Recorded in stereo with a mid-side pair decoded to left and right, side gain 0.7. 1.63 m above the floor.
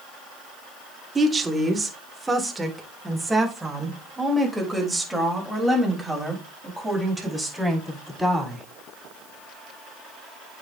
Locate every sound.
1.1 s a woman speaking: 20° right, 1.8 m; by 8.7 s straight ahead, 5.5 m